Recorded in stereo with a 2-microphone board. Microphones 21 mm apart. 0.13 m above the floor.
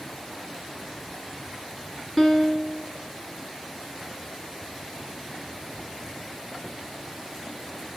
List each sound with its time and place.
2.2 s a piano: 5° left (ahead or behind), 1.9 m